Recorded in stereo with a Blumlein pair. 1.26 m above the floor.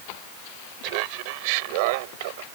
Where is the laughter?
45° right; by 2.5 s 50° right.